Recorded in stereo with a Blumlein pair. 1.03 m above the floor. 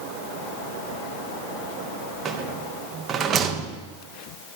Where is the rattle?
25° right, 1.0 m.